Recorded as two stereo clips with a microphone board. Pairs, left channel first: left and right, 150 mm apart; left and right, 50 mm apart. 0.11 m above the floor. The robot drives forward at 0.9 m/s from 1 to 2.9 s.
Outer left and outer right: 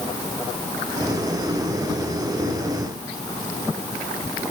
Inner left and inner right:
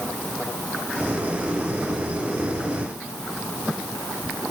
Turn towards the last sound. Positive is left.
No sound to turn to.